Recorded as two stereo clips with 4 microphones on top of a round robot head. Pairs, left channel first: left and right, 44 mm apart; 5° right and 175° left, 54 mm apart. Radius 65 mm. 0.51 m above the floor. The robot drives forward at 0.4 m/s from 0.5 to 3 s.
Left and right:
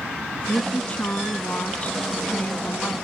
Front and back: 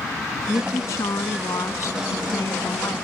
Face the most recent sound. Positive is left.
turn(degrees=30)